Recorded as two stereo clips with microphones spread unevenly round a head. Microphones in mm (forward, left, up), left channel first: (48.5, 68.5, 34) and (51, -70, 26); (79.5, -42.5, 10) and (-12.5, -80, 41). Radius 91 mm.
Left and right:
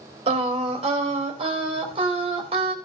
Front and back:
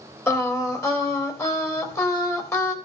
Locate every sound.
0.3 s singing: 40° right, 3 m